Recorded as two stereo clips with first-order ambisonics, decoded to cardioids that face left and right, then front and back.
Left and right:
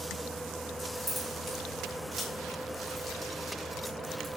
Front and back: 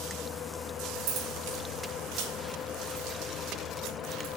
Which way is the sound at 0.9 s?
175° right.